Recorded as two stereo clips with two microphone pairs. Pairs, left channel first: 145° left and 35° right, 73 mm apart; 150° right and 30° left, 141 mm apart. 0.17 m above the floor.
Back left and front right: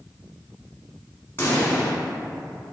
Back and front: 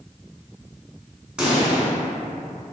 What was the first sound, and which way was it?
A pop, 115° left.